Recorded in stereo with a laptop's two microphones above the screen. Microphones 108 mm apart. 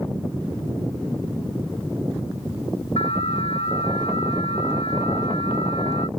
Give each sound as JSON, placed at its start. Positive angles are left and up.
{"t": 3.0, "sound": "an alarm", "side_deg": 70}